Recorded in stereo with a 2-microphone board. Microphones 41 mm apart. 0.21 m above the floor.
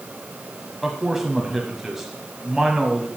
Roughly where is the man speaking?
Centre.